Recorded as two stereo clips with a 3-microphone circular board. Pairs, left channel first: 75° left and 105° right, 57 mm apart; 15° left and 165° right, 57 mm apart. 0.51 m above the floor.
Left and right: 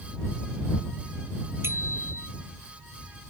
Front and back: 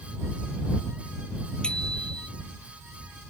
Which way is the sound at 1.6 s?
60° right.